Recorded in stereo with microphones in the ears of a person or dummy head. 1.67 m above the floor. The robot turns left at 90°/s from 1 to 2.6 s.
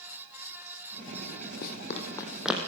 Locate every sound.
1.6 s running footsteps: 60° left (ahead or behind), 4.5 m; by 2.7 s 15° right (ahead or behind), 4.5 m